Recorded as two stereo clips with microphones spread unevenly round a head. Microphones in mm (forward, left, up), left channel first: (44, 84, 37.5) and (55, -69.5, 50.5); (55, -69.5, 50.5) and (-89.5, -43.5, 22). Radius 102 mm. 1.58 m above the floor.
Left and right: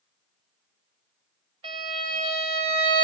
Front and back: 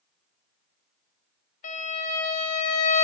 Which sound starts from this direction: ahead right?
A violin, at 1.6 s.